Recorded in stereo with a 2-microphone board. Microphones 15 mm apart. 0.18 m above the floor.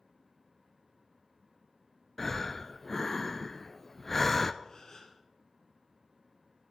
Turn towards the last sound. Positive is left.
turn(degrees=30)  # may be behind; listen again after turning